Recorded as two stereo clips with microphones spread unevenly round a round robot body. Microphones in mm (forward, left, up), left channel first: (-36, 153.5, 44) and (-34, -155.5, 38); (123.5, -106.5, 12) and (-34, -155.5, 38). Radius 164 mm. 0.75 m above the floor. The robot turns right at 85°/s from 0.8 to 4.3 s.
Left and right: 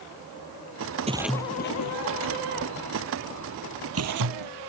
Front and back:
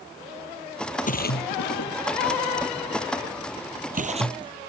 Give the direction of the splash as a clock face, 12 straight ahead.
1 o'clock.